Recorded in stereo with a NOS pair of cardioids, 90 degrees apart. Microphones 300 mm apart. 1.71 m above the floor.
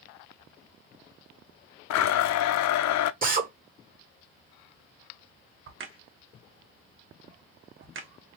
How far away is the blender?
About 0.5 m.